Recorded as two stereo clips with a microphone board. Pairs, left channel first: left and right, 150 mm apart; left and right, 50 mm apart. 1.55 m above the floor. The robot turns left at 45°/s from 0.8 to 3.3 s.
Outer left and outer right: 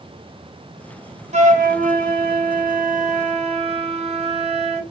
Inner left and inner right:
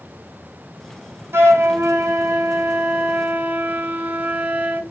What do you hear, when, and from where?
1.3 s a flute: 50° right, 0.6 m; by 4.8 s 140° right, 0.6 m